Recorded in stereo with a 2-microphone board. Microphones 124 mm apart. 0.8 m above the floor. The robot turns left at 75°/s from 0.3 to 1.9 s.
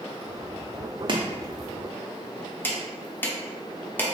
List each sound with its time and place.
1.1 s chopping: 40° right (ahead or behind), 0.6 m; by 4.1 s 15° left (ahead or behind), 0.6 m